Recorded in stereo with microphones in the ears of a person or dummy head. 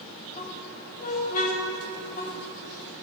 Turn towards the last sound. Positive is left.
turn(degrees=50)  # may be behind; listen again after turning